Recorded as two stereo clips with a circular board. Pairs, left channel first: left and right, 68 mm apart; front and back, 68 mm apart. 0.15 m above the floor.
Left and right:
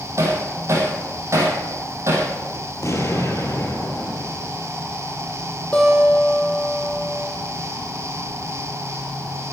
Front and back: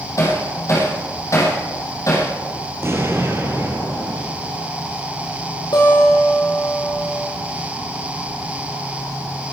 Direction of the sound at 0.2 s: 40° right.